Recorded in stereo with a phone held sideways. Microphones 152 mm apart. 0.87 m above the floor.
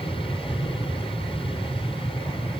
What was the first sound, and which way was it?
An aircraft, 35° left (ahead or behind).